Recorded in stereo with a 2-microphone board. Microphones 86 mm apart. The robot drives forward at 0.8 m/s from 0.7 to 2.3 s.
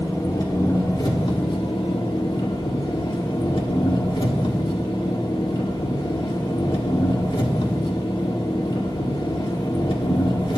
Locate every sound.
0.0 s an engine running: 50° left (ahead or behind), 1.3 m; by 10.6 s 65° left (ahead or behind), 1.1 m